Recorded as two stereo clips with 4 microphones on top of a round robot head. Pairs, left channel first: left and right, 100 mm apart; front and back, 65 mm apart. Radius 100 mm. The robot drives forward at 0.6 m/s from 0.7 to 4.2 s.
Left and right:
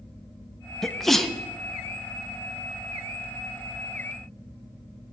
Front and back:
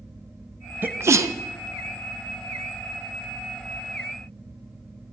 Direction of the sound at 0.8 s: 175° left.